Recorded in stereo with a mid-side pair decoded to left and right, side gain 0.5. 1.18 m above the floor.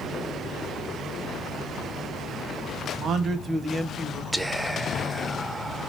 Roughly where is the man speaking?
Ahead right.